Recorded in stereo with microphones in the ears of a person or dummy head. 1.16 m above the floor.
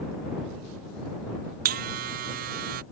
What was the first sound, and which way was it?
A buzzer, 45° right (ahead or behind).